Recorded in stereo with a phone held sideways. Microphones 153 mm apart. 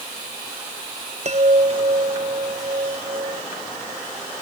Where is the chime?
45° right (ahead or behind).